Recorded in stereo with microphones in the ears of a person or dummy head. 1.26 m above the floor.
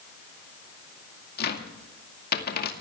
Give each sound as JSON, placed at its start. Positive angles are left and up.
{"t": 1.4, "sound": "a cupboard door", "side_deg": 65, "distance_m": 2.0}